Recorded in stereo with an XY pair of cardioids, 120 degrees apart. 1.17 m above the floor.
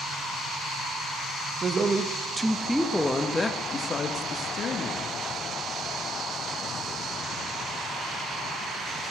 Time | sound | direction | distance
1.6 | a woman speaking | 35° right | 1.1 m